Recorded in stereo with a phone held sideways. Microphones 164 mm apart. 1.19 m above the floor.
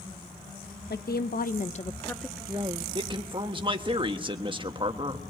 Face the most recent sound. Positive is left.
turn(degrees=-30)  # may be behind; listen again after turning